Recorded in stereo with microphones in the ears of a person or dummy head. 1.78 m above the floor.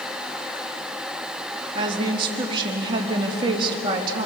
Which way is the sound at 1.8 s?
25° right (ahead or behind).